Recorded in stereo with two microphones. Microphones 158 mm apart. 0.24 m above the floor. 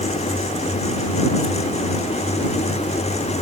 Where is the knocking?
I don't hear knocking.